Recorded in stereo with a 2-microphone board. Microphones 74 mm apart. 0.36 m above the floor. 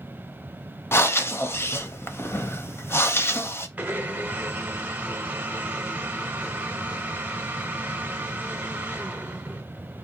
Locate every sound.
0.9 s breathing: 35° left (ahead or behind), 0.5 m
3.8 s a blender: 20° right (ahead or behind), 0.7 m